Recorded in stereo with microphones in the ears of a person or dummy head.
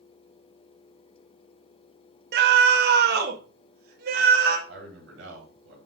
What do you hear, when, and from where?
2.3 s a scream: 65° right (ahead or behind), 0.9 m; by 4.6 s 60° right (ahead or behind), 2 m
4.7 s a man speaking: 75° right (ahead or behind), 4 m